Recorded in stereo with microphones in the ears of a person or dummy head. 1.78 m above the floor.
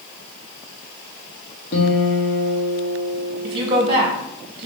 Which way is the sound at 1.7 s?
55° left (ahead or behind).